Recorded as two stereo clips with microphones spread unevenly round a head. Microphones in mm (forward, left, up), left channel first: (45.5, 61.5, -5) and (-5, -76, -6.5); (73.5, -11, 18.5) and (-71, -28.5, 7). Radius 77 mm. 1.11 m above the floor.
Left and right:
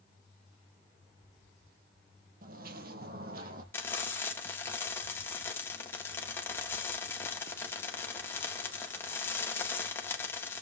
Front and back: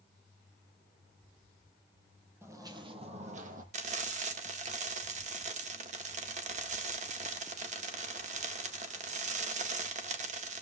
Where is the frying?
145° left, 1.7 m.